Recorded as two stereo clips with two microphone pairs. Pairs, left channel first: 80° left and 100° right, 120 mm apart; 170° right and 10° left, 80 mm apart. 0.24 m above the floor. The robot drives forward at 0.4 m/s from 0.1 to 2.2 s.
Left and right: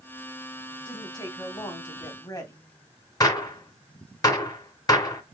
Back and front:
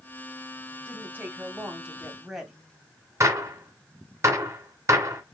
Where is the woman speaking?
45° left, 1.4 m; by 2.6 s 85° left, 1.3 m.